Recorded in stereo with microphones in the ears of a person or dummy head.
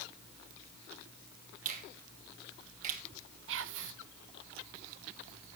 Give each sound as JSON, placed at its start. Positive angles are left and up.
{"t": 1.6, "sound": "a finger snap", "side_deg": -40, "distance_m": 1.7}
{"t": 3.5, "sound": "whispering", "side_deg": -70, "distance_m": 0.8}